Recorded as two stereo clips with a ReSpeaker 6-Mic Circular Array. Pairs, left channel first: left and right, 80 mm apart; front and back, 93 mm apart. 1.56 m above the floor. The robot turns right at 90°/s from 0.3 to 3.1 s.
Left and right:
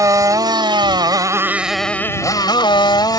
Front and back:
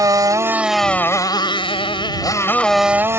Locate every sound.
0.0 s a motorcycle: 130° right; by 3.2 s 120° left